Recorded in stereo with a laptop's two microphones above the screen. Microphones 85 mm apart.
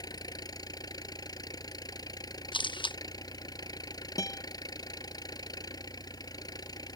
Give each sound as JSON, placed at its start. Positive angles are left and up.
{"t": 0.0, "sound": "an engine running", "side_deg": 50}
{"t": 2.5, "sound": "a camera shutter", "side_deg": 70}
{"t": 4.2, "sound": "a guitar", "side_deg": 40}